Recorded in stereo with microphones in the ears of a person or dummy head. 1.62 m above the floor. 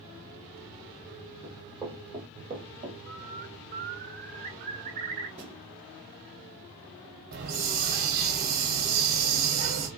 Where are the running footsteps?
10° right (ahead or behind), 3 m; by 3.0 s 30° right (ahead or behind), 2 m.